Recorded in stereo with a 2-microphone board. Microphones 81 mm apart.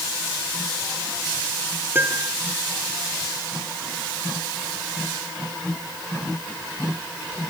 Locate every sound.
1.9 s a piano: 25° right (ahead or behind)